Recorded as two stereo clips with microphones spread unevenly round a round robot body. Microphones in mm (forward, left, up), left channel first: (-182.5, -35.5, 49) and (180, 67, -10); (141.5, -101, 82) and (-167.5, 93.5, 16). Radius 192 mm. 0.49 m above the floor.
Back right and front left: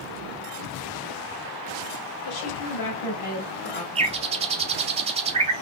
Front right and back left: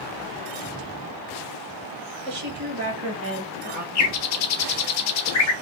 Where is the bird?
25° right, 0.9 m.